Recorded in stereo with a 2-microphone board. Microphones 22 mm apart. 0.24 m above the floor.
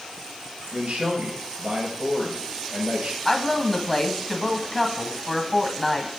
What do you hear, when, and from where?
0.7 s a man speaking: 75° right (ahead or behind), 4 m
3.2 s a woman speaking: 10° left (ahead or behind), 1.1 m